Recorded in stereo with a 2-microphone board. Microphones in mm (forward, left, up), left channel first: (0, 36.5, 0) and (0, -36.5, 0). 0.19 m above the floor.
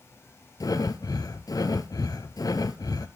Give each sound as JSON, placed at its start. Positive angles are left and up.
{"t": 0.6, "sound": "breathing", "side_deg": 60, "distance_m": 0.8}